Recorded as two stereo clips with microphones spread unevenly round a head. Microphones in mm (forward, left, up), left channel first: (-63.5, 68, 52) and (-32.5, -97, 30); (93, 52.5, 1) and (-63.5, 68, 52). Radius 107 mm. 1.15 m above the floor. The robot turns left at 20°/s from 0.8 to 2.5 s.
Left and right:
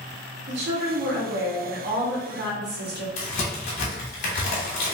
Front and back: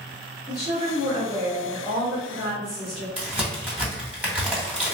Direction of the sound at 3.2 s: 110° left.